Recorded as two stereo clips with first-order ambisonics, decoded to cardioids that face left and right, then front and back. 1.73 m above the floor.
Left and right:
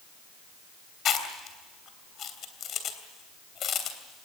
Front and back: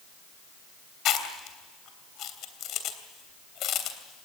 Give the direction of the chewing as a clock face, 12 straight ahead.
11 o'clock.